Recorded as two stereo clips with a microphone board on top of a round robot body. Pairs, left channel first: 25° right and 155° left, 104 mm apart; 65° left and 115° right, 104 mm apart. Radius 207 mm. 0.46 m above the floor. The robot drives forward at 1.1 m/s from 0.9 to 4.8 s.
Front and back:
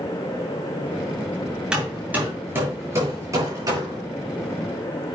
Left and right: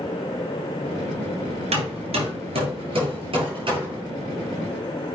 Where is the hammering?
120° right, 3 m; by 4.0 s 150° right, 4.5 m.